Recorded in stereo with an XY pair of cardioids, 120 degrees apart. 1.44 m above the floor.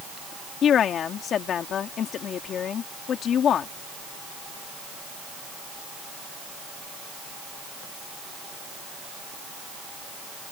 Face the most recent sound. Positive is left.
turn(degrees=55)